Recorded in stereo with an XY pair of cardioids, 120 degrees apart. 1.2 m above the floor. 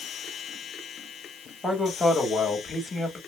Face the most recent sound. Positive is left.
turn(degrees=20)